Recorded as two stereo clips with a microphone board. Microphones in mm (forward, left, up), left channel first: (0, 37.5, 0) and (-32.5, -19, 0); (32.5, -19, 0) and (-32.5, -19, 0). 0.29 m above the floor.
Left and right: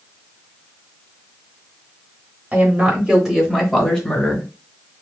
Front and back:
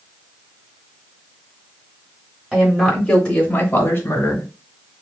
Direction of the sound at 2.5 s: 120° right.